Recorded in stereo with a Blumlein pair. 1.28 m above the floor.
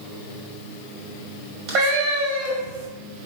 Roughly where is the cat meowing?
Ahead right.